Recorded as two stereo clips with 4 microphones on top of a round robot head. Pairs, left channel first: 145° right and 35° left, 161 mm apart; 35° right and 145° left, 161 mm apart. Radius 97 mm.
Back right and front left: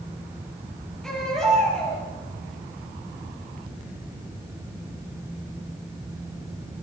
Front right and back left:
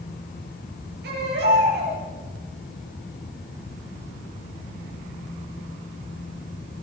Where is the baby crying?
130° left, 9 m.